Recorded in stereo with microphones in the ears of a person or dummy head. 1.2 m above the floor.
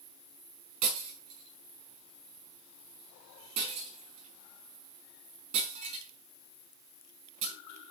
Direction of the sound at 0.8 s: 35° right (ahead or behind).